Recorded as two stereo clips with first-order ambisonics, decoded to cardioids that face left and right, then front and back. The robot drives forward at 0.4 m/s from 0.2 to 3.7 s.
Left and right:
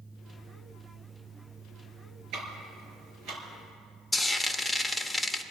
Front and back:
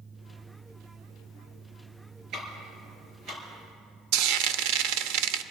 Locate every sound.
2.3 s ticking: 130° right, 4.5 m; by 3.4 s 135° right, 4.5 m
4.1 s frying: 175° left, 0.6 m